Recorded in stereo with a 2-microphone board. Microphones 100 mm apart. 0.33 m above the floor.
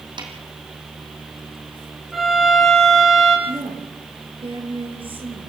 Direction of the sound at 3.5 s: 60° right (ahead or behind).